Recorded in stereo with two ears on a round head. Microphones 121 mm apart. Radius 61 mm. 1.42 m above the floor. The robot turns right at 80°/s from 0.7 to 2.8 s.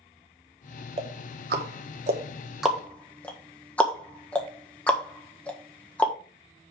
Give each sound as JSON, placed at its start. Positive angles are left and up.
{"t": 1.0, "sound": "ticking", "side_deg": -45, "distance_m": 1.5}